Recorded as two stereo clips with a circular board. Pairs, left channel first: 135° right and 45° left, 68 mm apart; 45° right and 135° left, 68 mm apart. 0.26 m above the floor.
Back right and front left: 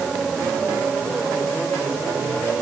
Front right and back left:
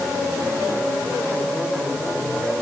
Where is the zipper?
I don't hear a zipper.